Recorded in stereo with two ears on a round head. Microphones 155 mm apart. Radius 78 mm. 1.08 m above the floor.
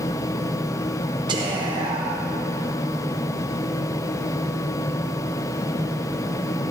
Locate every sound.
1.3 s whispering: 25° right (ahead or behind), 0.8 m